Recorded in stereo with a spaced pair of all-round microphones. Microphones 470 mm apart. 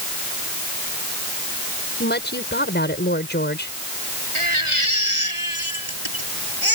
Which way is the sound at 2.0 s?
20° left (ahead or behind).